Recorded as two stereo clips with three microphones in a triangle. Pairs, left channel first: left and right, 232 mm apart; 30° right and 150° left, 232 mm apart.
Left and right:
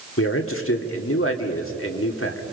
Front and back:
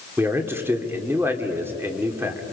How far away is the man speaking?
About 2 m.